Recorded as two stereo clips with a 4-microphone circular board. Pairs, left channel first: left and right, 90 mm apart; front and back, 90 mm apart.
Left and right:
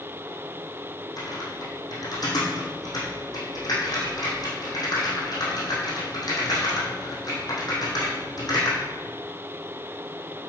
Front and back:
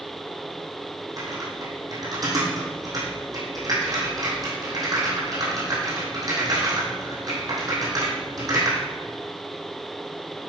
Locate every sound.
1.2 s typing on a keyboard: 135° left, 4.5 m